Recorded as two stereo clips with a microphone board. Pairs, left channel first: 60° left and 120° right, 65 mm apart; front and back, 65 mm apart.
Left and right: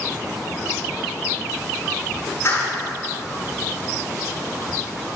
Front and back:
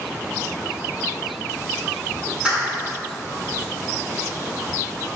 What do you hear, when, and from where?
2.5 s a clap: 105° left, 6 m